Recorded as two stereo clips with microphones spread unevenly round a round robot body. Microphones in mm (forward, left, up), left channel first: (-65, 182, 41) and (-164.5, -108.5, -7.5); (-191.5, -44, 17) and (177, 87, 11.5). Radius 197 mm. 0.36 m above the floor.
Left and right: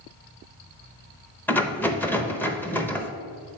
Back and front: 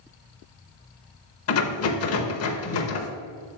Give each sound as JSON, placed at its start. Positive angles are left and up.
{"t": 1.5, "sound": "a rattle", "azimuth_deg": 160, "distance_m": 0.8}